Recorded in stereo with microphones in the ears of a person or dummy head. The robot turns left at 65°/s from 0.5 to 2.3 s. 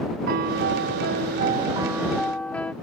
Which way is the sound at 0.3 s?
70° right.